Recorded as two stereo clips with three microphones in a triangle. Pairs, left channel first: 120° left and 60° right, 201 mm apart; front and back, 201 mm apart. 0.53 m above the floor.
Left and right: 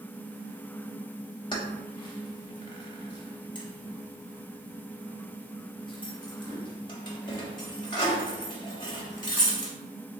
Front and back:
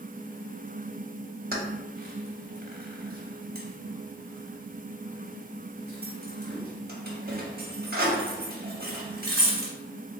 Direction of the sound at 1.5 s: 175° left.